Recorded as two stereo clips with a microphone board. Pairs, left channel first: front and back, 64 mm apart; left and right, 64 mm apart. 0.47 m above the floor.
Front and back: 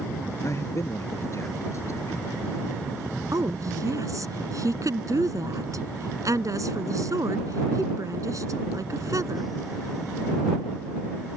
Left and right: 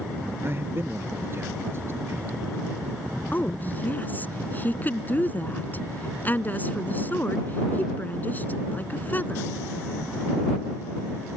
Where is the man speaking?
40° right.